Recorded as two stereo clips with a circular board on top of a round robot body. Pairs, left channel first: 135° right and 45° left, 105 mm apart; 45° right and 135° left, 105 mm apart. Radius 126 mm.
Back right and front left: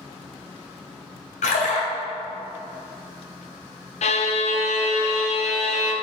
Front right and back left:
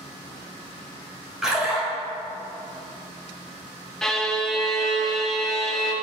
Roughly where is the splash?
Behind right.